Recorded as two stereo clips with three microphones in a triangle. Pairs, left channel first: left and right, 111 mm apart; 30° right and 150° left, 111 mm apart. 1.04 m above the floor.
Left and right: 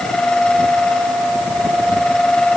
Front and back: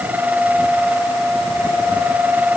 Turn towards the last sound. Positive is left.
No sound to turn to.